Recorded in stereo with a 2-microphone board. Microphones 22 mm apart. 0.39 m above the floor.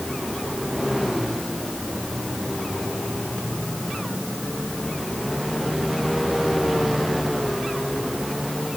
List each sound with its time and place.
Only background noise.